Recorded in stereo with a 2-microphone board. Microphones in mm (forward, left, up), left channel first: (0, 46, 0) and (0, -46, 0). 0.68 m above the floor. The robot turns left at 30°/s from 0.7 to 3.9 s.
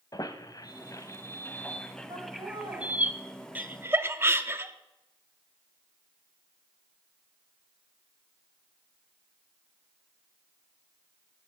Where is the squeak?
45° left (ahead or behind), 0.8 m; by 3.1 s 20° right (ahead or behind), 0.8 m.